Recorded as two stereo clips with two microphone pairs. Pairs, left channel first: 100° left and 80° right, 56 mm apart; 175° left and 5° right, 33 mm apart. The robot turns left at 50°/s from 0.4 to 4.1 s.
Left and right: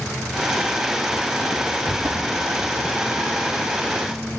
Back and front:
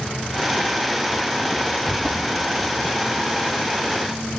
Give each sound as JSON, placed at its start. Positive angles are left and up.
{"t": 1.9, "sound": "footsteps", "azimuth_deg": -80, "distance_m": 2.0}